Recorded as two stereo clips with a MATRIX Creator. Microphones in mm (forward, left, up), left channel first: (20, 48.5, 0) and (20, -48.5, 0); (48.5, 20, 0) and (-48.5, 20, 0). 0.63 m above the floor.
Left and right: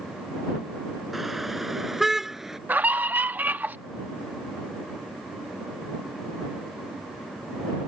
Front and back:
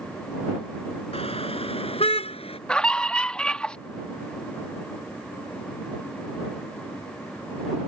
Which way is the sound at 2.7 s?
60° right.